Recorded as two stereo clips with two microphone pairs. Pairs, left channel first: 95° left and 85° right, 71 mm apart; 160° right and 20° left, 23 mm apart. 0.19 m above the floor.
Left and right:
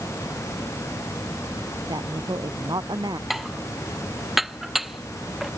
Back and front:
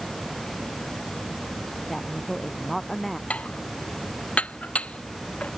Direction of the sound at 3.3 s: 170° right.